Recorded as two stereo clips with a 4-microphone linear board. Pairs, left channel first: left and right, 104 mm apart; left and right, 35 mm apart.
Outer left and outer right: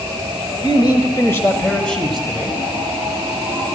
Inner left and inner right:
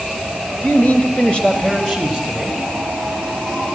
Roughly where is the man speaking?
Left.